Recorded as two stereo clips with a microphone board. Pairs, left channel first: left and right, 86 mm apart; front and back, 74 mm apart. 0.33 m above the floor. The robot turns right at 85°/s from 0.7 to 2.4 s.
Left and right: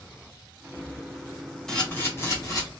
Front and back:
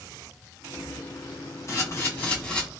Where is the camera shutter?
10° left, 1.2 m; by 2.7 s 70° left, 1.2 m.